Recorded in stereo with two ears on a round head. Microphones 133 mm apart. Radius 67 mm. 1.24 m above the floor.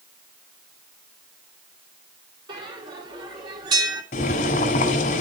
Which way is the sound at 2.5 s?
30° right (ahead or behind).